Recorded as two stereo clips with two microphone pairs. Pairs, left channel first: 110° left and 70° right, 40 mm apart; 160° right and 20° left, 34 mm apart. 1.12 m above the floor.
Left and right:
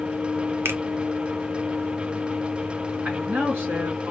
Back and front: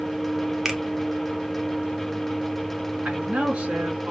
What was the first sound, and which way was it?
A finger snap, 60° right.